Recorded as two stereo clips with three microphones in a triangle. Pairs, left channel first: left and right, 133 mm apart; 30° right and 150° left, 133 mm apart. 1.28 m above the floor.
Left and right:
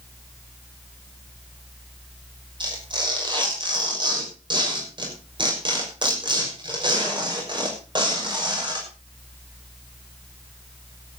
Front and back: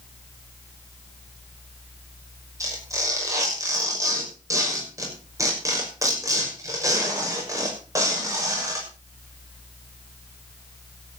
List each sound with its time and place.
2.6 s tearing paper: 145° right, 6 m